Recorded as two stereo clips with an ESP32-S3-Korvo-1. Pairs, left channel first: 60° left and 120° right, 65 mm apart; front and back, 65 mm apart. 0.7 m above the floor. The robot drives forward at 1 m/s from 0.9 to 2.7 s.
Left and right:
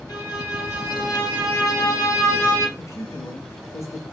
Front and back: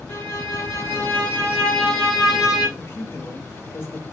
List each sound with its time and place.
0.1 s a violin: 50° left, 2 m; by 2.7 s 105° left, 1.8 m
2.8 s a man speaking: 40° left, 0.8 m